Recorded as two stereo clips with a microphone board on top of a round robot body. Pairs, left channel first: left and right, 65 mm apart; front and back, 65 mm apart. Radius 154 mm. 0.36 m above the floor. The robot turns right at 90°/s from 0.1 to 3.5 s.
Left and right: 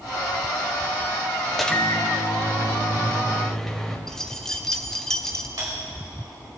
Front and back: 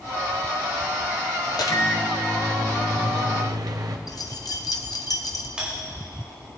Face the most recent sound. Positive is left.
turn(degrees=-105)